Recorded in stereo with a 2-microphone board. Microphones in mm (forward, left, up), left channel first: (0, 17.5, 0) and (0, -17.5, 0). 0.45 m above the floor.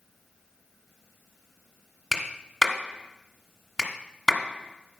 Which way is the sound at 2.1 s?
10° left (ahead or behind).